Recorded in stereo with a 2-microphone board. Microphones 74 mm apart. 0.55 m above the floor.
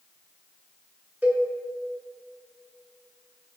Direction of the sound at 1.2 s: 20° right (ahead or behind).